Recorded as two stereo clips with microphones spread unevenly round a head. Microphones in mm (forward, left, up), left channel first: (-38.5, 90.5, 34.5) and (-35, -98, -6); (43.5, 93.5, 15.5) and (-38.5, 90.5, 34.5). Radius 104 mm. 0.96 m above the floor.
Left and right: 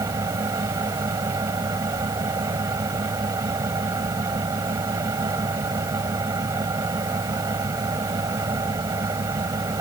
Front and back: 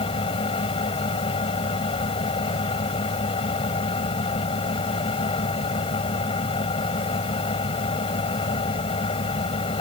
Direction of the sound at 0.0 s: 10° right.